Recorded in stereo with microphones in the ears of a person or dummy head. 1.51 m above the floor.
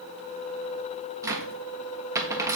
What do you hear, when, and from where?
1.2 s a cupboard door: 15° right (ahead or behind), 1.4 m